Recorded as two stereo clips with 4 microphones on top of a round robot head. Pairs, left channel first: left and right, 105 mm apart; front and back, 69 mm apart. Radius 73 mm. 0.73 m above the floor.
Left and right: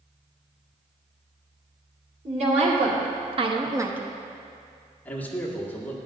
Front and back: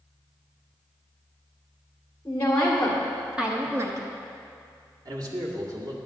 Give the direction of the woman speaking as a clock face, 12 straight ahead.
2 o'clock.